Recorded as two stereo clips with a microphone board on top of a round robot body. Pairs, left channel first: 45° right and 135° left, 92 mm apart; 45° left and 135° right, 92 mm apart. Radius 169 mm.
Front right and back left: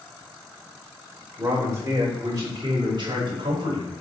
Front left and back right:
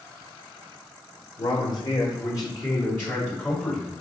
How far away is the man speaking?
About 2.5 m.